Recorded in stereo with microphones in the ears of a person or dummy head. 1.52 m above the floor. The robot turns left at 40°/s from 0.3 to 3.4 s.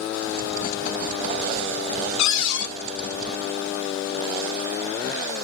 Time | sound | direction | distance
2.2 | a cupboard door | 80° left | 1.2 m